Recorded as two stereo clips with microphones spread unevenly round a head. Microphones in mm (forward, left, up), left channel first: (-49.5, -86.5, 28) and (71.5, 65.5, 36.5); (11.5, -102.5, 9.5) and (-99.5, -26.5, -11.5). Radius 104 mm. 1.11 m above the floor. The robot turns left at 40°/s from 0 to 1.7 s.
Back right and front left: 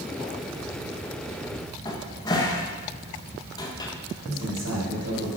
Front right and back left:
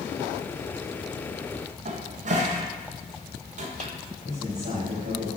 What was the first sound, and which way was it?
A cupboard door, 165° left.